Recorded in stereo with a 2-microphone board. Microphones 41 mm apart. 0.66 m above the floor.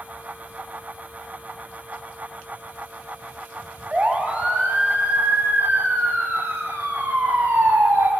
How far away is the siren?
About 5.5 m.